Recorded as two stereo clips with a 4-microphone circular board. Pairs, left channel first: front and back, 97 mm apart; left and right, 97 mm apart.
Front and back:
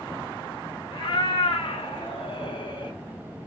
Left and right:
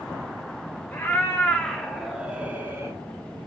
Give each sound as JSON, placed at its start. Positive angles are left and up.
{"t": 0.9, "sound": "a cat meowing", "azimuth_deg": 25, "distance_m": 1.3}